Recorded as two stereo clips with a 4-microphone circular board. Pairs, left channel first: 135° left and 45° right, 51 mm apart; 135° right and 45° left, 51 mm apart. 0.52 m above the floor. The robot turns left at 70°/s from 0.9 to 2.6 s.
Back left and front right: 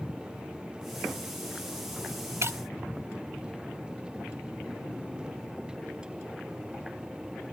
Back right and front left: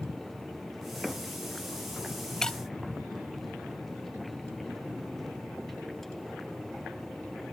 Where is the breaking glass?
60° right; by 2.6 s 70° right.